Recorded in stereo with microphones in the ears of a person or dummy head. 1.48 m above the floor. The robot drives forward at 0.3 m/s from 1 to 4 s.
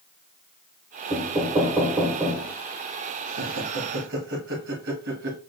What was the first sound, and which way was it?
Knocking, 15° right (ahead or behind).